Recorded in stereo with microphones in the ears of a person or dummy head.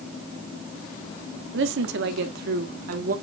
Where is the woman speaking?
75° right (ahead or behind), 1.6 m; by 3.1 s 55° right (ahead or behind), 1.9 m.